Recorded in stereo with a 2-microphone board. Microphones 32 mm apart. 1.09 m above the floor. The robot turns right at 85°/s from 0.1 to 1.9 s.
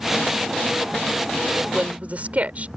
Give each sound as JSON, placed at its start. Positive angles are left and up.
{"t": 1.5, "sound": "a woman speaking", "azimuth_deg": -160}